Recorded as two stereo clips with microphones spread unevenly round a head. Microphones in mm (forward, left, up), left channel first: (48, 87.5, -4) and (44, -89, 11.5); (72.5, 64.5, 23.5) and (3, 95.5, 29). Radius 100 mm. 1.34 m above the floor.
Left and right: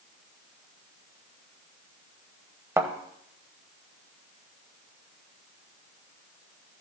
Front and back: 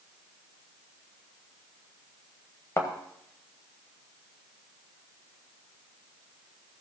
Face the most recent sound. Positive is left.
turn(degrees=-50)